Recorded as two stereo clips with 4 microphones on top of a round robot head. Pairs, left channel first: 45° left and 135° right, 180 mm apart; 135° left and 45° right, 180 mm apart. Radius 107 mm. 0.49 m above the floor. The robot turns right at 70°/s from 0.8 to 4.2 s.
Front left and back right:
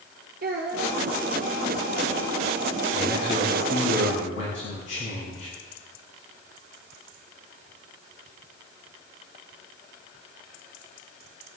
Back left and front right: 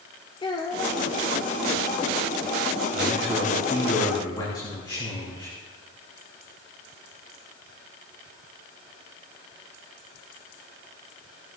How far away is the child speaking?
About 1.0 m.